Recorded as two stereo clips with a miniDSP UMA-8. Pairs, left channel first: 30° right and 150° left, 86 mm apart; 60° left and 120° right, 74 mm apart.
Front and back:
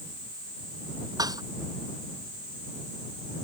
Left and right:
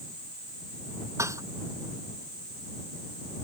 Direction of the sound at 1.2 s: 170° right.